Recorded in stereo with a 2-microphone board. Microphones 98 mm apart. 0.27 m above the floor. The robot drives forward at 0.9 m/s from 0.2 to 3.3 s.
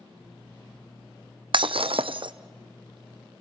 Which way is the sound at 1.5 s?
60° right (ahead or behind).